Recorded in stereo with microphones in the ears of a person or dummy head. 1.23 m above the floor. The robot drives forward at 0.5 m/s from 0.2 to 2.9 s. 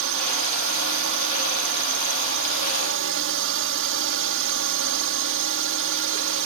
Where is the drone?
65° right (ahead or behind).